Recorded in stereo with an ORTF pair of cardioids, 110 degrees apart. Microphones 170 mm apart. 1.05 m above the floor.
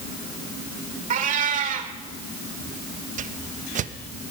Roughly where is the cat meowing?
Ahead right.